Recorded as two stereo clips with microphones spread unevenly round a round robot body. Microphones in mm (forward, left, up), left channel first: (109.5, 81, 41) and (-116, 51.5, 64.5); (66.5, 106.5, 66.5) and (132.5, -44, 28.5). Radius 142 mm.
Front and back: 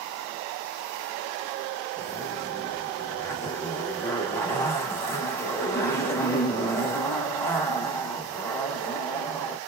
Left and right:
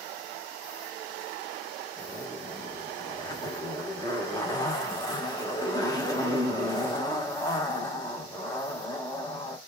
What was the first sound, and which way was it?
A zipper, 45° left.